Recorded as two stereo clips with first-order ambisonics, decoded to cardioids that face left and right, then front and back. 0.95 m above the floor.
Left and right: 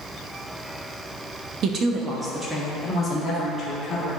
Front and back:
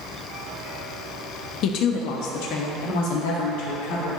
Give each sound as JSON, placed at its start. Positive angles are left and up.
{"t": 1.6, "sound": "a woman speaking", "azimuth_deg": -40, "distance_m": 0.8}